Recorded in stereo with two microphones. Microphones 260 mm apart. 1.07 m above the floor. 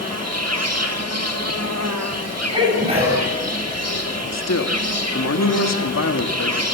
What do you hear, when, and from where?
0.0 s an insect: 75° right (ahead or behind), 1.6 m
2.5 s a sneeze: 25° right (ahead or behind), 7 m
4.3 s a man speaking: 85° left, 1.6 m